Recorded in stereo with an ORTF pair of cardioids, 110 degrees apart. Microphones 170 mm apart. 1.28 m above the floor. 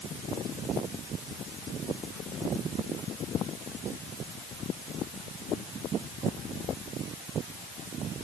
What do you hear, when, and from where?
Only background noise.